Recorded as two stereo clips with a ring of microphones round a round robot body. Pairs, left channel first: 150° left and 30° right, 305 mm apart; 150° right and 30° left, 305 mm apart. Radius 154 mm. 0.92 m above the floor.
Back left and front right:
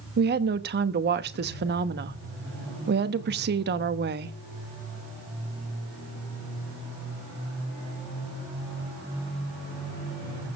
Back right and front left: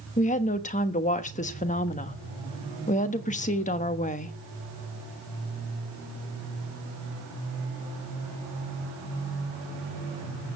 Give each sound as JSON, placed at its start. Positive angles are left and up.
{"t": 0.2, "sound": "a woman speaking", "azimuth_deg": -85, "distance_m": 1.1}